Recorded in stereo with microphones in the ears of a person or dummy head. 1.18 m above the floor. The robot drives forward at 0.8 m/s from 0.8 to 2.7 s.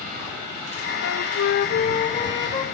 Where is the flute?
55° left (ahead or behind), 0.5 m; by 2.6 s 20° left (ahead or behind), 1.2 m.